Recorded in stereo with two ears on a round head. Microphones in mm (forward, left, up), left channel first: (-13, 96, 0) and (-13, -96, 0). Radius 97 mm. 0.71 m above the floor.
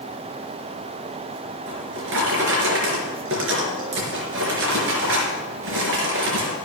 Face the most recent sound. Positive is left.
turn(degrees=-65)  # may be behind; listen again after turning